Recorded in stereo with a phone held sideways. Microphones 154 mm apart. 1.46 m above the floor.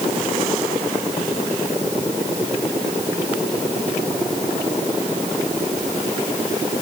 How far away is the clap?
No clap in this recording.